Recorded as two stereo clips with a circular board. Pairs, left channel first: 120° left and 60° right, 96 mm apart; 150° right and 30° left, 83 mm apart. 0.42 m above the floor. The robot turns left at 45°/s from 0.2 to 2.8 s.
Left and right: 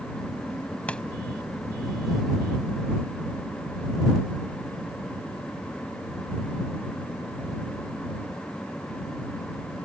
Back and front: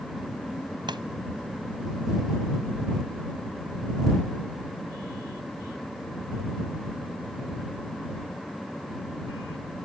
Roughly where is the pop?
Ahead left.